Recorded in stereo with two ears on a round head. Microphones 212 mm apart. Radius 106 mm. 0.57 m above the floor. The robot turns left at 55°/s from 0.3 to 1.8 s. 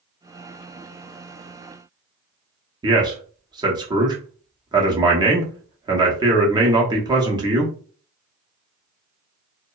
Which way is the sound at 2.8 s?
20° right (ahead or behind).